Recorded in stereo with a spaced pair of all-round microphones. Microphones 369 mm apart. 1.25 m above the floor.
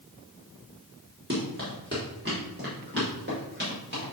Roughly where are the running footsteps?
Right.